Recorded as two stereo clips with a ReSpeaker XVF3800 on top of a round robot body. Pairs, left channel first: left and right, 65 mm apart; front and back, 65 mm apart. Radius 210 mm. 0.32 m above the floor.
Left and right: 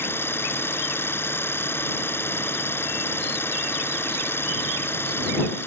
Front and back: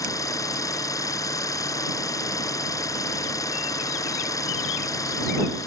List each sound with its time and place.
0.0 s an engine running: 35° left